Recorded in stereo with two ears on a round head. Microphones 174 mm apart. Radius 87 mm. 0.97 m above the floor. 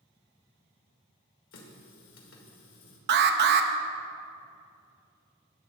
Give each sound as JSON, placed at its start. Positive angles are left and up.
{"t": 1.5, "sound": "a running tap", "side_deg": 70, "distance_m": 1.9}
{"t": 3.1, "sound": "an alarm", "side_deg": -50, "distance_m": 0.7}